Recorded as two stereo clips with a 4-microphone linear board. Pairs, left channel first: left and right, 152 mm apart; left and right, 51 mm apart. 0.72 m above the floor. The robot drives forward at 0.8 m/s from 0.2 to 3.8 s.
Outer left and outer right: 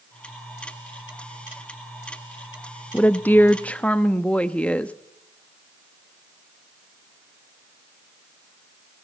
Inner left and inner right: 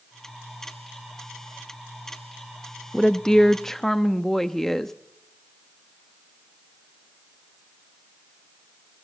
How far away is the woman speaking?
About 0.5 m.